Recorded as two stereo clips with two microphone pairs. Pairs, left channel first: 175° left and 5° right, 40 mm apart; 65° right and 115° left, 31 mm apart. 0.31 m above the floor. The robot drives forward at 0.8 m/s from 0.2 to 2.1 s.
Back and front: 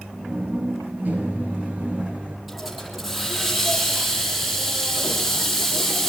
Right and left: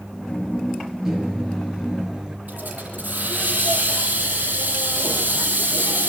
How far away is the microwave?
About 6 m.